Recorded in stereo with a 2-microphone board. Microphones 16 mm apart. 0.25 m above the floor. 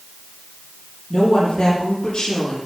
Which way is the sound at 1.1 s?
45° left (ahead or behind).